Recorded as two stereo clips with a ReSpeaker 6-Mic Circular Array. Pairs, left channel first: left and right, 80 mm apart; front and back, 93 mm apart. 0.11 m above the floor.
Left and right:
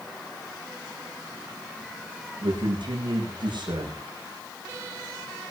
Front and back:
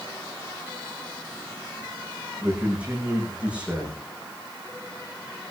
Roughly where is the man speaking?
Right.